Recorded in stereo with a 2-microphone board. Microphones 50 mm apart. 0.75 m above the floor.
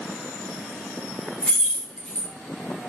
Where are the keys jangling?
15° left (ahead or behind), 0.9 m.